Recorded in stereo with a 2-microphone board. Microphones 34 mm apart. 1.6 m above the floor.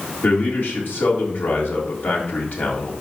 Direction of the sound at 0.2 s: 75° left (ahead or behind).